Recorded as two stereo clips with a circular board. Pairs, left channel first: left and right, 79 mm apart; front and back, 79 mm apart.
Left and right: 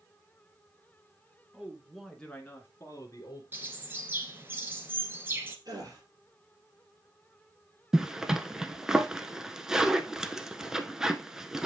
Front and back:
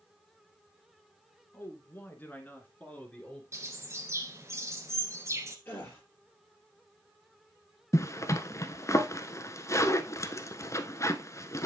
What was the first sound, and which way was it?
A man speaking, 30° right.